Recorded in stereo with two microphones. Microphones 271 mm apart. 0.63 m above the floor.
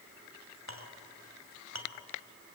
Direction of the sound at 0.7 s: 85° right.